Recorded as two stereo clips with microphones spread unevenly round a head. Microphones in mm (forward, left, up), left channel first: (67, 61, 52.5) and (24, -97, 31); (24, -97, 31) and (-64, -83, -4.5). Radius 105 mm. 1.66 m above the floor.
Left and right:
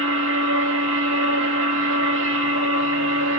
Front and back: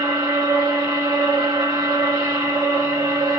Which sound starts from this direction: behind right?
A machine running, at 0.0 s.